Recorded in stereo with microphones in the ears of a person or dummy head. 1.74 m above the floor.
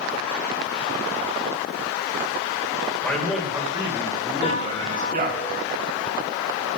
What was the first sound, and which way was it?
A man speaking, 5° left (ahead or behind).